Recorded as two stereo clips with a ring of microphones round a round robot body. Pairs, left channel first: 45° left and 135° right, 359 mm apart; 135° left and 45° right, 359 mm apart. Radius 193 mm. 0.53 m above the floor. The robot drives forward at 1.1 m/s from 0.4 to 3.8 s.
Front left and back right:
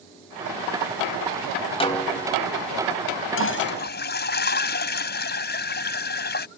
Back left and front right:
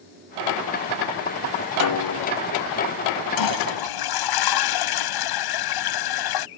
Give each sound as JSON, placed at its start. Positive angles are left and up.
{"t": 1.8, "sound": "a snare drum", "azimuth_deg": 115}
{"t": 3.4, "sound": "a toilet flushing", "azimuth_deg": 100}